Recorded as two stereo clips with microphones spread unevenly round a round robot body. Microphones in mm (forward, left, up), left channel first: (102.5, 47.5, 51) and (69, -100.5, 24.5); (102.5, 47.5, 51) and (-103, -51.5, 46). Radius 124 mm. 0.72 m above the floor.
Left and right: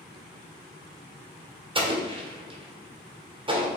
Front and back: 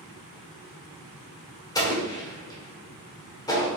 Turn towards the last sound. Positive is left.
turn(degrees=-50)